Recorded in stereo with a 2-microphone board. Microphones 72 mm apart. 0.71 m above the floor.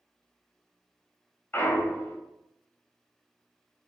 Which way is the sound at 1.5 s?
30° left (ahead or behind).